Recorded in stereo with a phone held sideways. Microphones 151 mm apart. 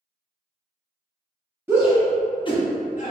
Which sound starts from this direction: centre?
A shout, at 1.7 s.